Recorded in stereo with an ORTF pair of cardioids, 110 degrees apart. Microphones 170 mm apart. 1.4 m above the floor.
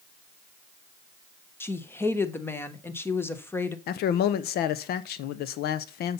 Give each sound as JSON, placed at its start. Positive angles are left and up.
{"t": 1.6, "sound": "a woman speaking", "azimuth_deg": 15, "distance_m": 1.2}
{"t": 3.9, "sound": "a man speaking", "azimuth_deg": 70, "distance_m": 0.8}